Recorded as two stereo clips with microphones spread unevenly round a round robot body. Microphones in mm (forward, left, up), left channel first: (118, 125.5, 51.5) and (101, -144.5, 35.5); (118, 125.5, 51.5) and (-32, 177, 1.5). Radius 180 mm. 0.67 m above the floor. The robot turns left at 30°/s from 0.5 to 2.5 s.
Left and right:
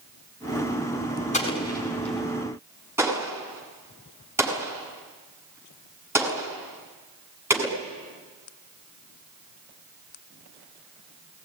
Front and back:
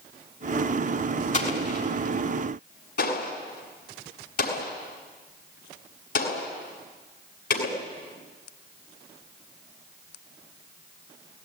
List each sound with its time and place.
1.3 s an explosion: 20° left, 7 m; by 7.8 s 15° right, 7 m